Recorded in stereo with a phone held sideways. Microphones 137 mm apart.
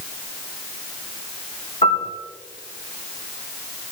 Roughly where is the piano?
Left.